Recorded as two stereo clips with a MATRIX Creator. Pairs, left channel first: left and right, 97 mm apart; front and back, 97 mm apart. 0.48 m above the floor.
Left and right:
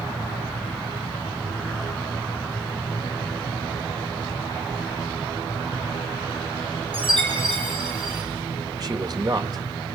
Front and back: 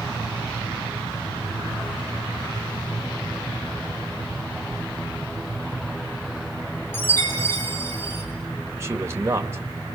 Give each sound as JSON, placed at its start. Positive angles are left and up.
{"t": 4.7, "sound": "a whoosh", "azimuth_deg": -20, "distance_m": 9.0}
{"t": 6.9, "sound": "a chime", "azimuth_deg": -65, "distance_m": 6.5}
{"t": 8.7, "sound": "a man speaking", "azimuth_deg": -125, "distance_m": 1.9}